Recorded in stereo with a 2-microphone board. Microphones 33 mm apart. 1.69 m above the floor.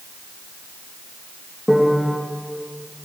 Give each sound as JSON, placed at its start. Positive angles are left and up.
{"t": 1.7, "sound": "a piano", "side_deg": -5, "distance_m": 2.5}